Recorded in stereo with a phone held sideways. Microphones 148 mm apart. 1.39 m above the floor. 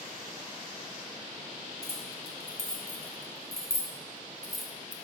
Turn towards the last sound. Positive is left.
turn(degrees=-10)  # may be behind; listen again after turning